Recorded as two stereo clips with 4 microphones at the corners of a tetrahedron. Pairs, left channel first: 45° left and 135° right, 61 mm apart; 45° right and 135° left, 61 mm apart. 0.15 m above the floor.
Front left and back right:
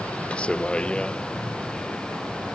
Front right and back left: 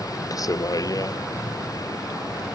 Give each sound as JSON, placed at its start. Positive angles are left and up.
{"t": 0.0, "sound": "a vehicle", "azimuth_deg": -25}